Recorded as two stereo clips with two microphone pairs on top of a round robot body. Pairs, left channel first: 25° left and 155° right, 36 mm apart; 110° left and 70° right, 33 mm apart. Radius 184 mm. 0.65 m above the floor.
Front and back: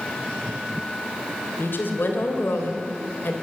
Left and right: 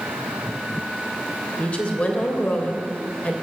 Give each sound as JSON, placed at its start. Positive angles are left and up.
{"t": 1.6, "sound": "a woman speaking", "azimuth_deg": 60, "distance_m": 3.0}